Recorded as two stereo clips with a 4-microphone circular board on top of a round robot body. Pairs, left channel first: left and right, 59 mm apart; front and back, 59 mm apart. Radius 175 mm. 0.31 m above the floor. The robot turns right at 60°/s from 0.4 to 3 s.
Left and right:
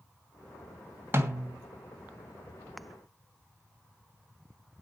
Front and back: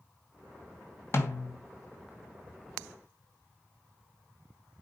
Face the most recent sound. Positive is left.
turn(degrees=70)